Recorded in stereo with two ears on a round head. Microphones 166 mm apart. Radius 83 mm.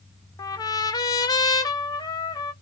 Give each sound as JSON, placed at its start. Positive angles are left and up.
{"t": 0.4, "sound": "a trumpet", "side_deg": 20, "distance_m": 0.5}